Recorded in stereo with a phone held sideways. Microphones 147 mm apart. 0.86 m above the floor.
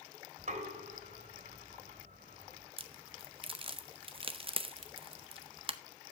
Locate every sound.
0.4 s knocking: 60° right (ahead or behind), 2.5 m
2.8 s a crack: 40° right (ahead or behind), 0.7 m